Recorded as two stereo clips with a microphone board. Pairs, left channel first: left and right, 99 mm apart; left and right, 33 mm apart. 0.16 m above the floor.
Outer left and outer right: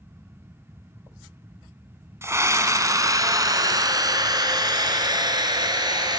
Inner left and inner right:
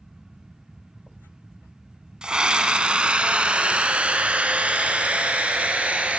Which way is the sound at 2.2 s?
30° right (ahead or behind).